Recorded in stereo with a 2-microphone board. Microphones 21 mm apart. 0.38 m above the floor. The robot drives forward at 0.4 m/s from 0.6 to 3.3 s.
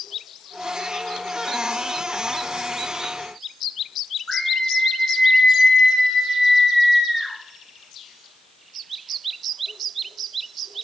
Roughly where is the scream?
Left.